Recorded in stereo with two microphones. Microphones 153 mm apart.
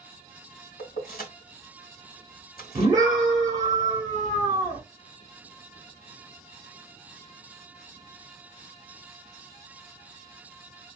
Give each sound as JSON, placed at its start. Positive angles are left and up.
{"t": 0.8, "sound": "keys jangling", "side_deg": 75, "distance_m": 1.8}
{"t": 2.8, "sound": "a scream", "side_deg": -25, "distance_m": 1.4}